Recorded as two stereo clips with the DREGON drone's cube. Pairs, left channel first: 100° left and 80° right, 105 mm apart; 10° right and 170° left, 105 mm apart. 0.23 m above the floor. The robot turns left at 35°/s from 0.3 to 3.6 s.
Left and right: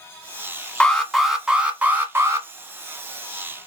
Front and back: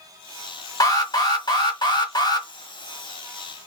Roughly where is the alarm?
Ahead left.